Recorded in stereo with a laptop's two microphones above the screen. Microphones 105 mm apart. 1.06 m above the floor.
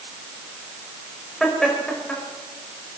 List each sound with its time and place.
1.4 s laughter: 5° left (ahead or behind), 6 m; by 3.0 s 10° left (ahead or behind), 6 m